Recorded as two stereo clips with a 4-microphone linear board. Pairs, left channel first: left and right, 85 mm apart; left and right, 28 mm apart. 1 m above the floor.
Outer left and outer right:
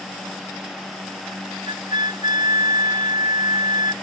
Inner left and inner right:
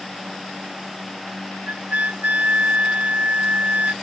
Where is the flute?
65° right (ahead or behind).